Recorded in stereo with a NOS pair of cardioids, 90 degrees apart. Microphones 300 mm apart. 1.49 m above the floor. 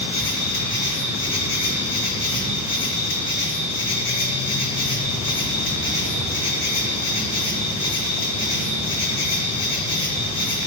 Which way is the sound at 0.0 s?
60° left.